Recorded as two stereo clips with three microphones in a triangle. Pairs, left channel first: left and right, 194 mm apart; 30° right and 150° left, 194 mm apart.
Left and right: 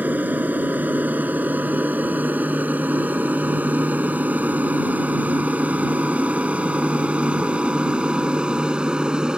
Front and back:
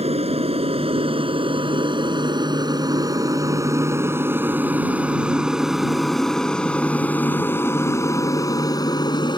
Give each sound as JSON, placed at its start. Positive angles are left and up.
{"t": 0.0, "sound": "an aircraft", "azimuth_deg": -170}